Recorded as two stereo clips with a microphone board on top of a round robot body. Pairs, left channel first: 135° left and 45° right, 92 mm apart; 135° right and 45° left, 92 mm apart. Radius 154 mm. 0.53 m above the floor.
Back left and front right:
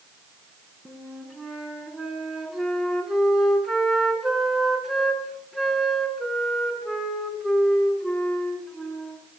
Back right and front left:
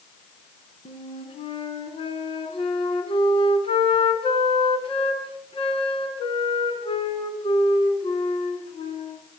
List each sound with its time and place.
0.8 s a flute: 135° right, 4.5 m